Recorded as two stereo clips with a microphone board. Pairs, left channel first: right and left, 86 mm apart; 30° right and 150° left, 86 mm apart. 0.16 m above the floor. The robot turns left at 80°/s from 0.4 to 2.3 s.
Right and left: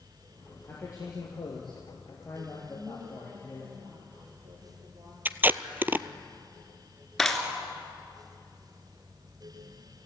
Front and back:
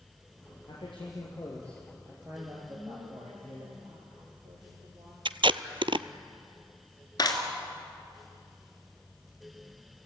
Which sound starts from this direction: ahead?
A clap, at 7.2 s.